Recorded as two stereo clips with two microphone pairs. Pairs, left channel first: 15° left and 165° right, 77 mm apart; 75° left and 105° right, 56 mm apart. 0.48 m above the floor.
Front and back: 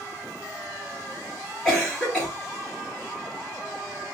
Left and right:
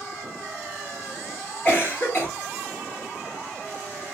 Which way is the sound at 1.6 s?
90° left.